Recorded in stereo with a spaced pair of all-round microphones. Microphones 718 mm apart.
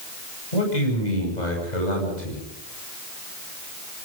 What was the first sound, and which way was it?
A man speaking, 75° left (ahead or behind).